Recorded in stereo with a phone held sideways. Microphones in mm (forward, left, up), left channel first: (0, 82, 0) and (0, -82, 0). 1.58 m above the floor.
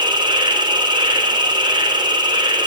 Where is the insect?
25° right (ahead or behind), 3.5 m.